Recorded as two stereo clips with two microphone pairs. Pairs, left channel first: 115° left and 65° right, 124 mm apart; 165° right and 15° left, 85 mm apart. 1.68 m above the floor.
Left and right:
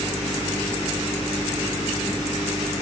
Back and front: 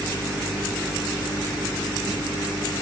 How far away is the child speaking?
I don't hear a child speaking.